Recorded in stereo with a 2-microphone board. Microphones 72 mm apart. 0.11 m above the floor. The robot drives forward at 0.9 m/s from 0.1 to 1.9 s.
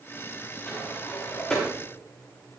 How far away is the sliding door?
About 7.5 m.